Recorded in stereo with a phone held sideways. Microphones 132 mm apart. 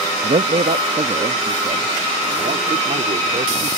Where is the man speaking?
70° right (ahead or behind); by 3.7 s 75° right (ahead or behind).